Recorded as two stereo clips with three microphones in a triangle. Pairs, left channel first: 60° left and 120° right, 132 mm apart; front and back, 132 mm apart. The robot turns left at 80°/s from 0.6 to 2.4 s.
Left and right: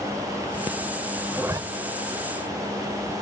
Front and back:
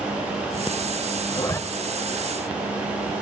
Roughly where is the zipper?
Ahead right.